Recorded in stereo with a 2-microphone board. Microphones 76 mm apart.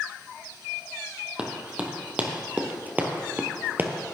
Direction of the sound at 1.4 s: 15° right (ahead or behind).